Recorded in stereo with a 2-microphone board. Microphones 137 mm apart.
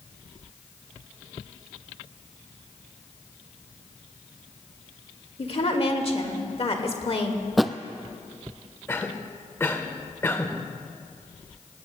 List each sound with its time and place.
5.4 s a woman speaking: 45° left (ahead or behind), 1.5 m
7.6 s a thud: centre (ahead or behind), 0.5 m
8.9 s a cough: 15° left (ahead or behind), 1.1 m